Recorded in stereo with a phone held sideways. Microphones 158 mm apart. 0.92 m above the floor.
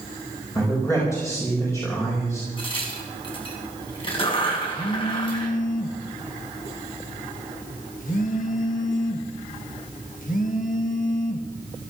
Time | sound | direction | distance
0.6 | a man speaking | 20° left (ahead or behind) | 4.5 m
2.6 | a crack | 35° left (ahead or behind) | 4.5 m
4.7 | a phone buzzing | 60° left (ahead or behind) | 1.5 m